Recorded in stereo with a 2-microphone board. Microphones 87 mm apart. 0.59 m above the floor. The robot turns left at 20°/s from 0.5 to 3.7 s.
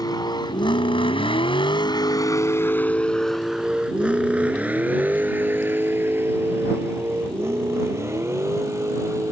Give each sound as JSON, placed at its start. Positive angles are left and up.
{"t": 0.0, "sound": "a vehicle", "side_deg": 45}